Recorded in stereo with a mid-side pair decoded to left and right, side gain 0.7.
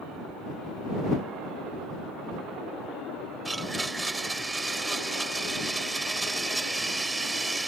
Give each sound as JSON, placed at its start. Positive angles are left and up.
{"t": 3.5, "sound": "a blender", "azimuth_deg": -10}